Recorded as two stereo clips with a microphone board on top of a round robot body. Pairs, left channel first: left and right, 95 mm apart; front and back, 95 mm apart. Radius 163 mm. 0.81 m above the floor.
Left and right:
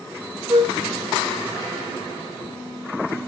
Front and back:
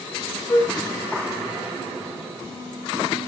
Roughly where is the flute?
Ahead right.